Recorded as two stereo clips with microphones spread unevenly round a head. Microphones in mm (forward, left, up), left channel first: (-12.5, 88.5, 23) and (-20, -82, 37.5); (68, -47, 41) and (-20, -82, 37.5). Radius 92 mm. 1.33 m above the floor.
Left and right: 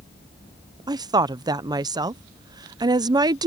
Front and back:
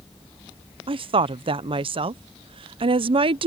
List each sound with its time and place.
0.9 s a woman speaking: 160° right